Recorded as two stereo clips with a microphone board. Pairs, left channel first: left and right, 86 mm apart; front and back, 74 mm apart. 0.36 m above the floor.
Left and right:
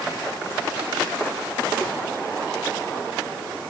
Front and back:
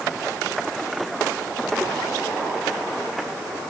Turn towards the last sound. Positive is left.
No sound to turn to.